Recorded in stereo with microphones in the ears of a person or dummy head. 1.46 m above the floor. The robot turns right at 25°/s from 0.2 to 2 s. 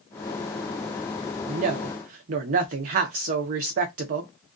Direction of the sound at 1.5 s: 35° right (ahead or behind).